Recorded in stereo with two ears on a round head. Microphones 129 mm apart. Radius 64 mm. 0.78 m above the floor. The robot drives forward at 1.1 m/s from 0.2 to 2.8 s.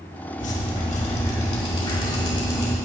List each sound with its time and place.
0.4 s dripping: 55° left (ahead or behind), 1.7 m; by 2.7 s 30° left (ahead or behind), 3 m